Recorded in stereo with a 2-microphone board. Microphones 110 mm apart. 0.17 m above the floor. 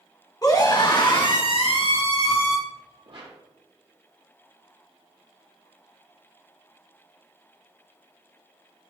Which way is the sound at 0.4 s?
35° left (ahead or behind).